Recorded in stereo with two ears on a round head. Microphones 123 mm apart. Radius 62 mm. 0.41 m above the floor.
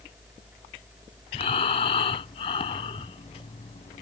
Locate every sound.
1.3 s breathing: 40° left (ahead or behind)